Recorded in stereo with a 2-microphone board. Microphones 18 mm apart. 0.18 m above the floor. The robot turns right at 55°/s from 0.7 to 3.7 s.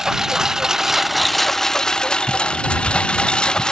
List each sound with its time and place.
0.0 s a lawn mower: 35° right; by 3.7 s 130° left
2.7 s a cat meowing: 60° left (ahead or behind); by 3.0 s 70° left (ahead or behind)